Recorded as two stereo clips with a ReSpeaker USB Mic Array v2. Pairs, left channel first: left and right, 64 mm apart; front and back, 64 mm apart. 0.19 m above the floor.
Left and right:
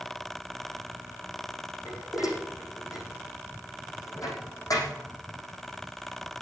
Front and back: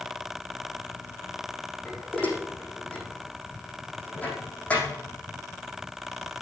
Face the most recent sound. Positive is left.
turn(degrees=70)